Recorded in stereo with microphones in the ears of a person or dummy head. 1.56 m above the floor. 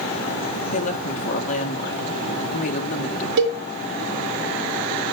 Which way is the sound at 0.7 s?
45° left (ahead or behind).